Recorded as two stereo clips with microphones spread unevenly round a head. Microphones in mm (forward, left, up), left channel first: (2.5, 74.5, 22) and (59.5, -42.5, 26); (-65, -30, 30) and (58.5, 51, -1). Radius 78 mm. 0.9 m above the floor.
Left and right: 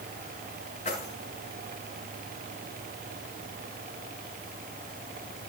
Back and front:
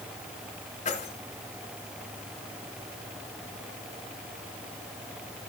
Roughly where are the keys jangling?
Behind.